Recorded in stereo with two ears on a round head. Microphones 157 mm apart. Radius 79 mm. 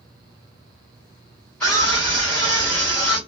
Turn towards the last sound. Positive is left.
turn(degrees=5)  # may be behind; listen again after turning